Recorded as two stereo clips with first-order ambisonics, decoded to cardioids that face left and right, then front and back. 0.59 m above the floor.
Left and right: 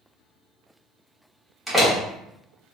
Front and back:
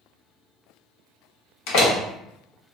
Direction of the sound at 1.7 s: 5° right.